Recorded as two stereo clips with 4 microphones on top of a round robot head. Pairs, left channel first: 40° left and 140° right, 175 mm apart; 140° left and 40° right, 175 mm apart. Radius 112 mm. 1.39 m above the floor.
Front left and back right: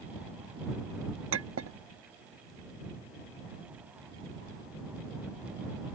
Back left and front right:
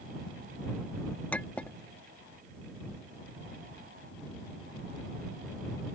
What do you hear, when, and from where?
1.3 s a clink: 140° right